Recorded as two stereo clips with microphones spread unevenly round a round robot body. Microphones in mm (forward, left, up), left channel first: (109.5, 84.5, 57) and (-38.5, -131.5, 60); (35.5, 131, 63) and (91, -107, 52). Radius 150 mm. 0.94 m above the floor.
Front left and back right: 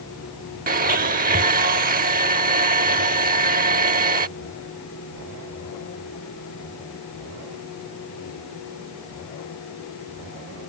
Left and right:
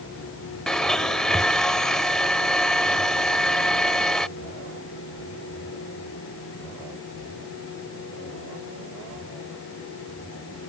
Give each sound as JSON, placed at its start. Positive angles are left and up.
{"t": 0.7, "sound": "a blender", "azimuth_deg": -175}